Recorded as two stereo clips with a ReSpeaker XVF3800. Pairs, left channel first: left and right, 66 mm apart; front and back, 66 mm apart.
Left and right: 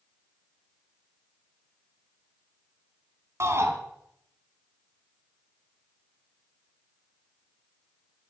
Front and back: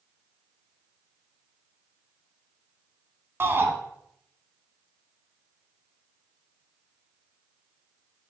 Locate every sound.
3.4 s a shout: 130° right, 3 m